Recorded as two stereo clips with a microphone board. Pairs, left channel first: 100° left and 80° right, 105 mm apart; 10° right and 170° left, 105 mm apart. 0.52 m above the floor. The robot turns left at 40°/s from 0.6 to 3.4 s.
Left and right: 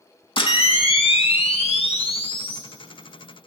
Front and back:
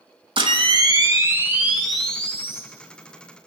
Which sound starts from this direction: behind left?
A camera shutter, at 0.4 s.